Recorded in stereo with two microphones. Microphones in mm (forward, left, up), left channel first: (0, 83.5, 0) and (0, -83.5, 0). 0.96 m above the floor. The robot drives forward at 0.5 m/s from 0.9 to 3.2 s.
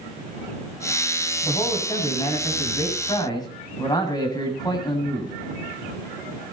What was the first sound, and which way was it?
A man speaking, 25° left (ahead or behind).